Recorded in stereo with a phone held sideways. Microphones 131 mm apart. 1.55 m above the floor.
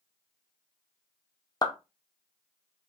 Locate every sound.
1.6 s a clap: 30° left (ahead or behind), 0.5 m